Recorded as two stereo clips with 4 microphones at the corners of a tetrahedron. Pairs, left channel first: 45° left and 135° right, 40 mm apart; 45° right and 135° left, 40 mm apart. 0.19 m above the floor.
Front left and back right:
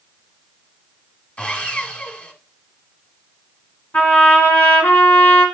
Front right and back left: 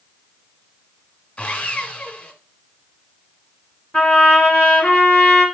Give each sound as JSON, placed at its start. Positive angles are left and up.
{"t": 1.4, "sound": "sawing", "azimuth_deg": 5, "distance_m": 1.3}
{"t": 3.9, "sound": "a trumpet", "azimuth_deg": 25, "distance_m": 2.5}